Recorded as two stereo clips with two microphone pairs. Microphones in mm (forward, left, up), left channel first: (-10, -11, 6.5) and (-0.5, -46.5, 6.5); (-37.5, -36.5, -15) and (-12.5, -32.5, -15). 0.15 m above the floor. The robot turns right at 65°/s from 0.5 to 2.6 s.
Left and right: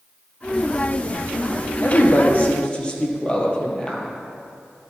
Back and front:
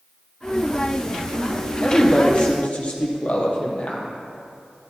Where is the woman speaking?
115° left, 4.5 m; by 4.1 s 170° left, 4.5 m.